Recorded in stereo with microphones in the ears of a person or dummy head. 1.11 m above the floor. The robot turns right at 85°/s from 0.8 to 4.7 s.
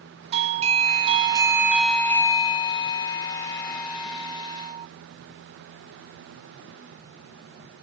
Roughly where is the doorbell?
Right.